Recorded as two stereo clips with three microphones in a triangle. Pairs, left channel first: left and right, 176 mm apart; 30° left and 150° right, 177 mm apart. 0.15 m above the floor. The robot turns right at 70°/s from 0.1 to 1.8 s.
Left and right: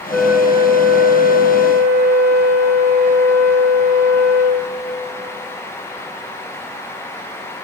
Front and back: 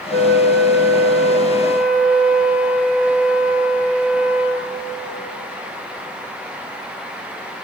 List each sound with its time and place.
0.1 s a flute: 175° left, 0.5 m; by 4.7 s 65° right, 0.5 m